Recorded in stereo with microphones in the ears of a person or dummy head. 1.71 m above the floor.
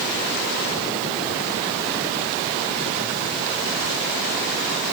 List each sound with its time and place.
Only background noise.